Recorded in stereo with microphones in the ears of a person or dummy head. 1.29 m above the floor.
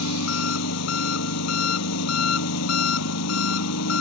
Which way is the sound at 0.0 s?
75° left (ahead or behind).